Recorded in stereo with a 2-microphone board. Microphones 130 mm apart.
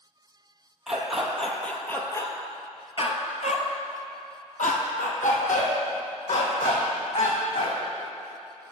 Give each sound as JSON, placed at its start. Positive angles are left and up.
{"t": 0.9, "sound": "a dog barking", "side_deg": -5, "distance_m": 1.5}